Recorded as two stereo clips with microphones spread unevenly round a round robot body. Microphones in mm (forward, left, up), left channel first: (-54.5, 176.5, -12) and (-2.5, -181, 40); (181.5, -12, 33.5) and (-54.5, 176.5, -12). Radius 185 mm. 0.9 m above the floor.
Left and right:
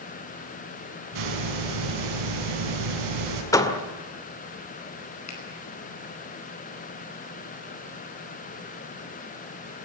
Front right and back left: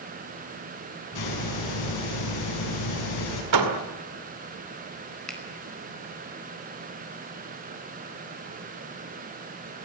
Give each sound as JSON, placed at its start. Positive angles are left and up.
{"t": 1.1, "sound": "a hiss", "azimuth_deg": -75, "distance_m": 6.0}
{"t": 3.5, "sound": "a door slam", "azimuth_deg": 180, "distance_m": 2.0}
{"t": 5.3, "sound": "a finger snap", "azimuth_deg": 50, "distance_m": 5.0}